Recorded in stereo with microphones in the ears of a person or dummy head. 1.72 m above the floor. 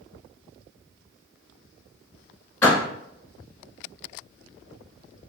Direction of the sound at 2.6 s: 5° left (ahead or behind).